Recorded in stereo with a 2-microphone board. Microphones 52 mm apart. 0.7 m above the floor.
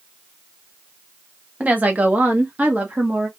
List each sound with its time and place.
1.6 s a woman speaking: 30° right (ahead or behind), 1.2 m